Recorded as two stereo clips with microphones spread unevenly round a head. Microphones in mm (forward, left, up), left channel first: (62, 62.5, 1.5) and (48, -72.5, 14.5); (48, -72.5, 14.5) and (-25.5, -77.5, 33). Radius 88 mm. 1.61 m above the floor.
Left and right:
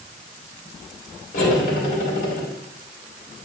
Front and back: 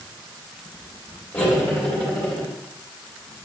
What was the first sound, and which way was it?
Cutlery clinking, 80° left.